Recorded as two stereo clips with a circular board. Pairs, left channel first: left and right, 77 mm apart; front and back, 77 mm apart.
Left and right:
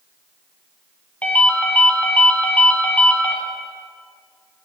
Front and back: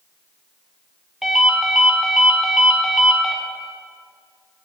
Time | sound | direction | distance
1.2 | a ringtone | 100° left | 0.9 m